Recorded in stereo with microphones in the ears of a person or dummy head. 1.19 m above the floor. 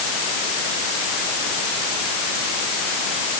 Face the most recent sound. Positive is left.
No sound to turn to.